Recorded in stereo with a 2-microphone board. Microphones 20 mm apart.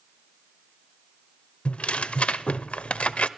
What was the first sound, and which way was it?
Tearing paper, 70° left (ahead or behind).